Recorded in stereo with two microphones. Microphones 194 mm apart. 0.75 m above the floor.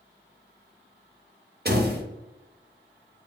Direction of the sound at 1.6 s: 55° right (ahead or behind).